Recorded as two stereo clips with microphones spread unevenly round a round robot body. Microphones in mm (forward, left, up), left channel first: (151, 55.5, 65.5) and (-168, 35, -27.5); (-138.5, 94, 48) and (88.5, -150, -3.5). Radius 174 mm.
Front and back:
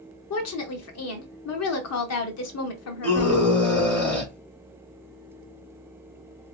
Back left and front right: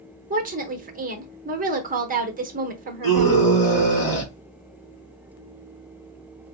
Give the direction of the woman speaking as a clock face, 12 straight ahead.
1 o'clock.